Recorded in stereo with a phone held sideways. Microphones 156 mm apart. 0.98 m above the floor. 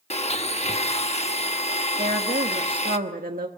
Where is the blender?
45° left (ahead or behind), 1.0 m.